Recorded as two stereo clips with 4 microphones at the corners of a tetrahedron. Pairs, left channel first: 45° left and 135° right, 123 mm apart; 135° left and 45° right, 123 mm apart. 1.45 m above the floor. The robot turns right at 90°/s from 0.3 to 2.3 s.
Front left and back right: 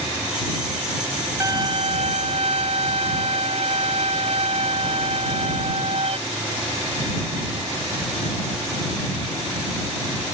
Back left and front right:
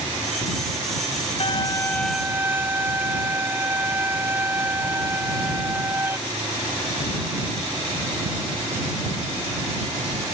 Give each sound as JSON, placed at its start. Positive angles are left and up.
{"t": 1.4, "sound": "a violin", "azimuth_deg": 165}